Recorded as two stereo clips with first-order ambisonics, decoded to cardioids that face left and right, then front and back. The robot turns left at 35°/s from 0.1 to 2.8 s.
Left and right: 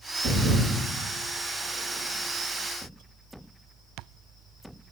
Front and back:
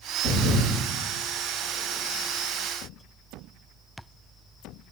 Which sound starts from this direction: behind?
A thud, at 0.2 s.